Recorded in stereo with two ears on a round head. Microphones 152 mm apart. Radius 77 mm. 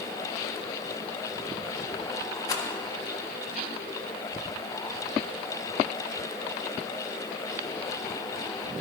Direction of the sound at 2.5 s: 20° left (ahead or behind).